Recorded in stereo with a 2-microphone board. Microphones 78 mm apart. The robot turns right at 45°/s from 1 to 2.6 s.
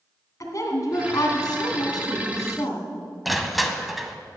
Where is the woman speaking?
55° left, 2 m; by 2.9 s 125° left, 2 m.